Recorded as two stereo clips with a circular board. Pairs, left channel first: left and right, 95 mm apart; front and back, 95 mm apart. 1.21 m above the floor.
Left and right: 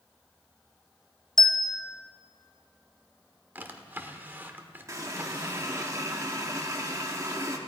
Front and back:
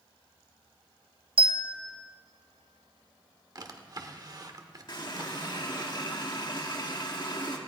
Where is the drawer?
155° right, 1.1 m.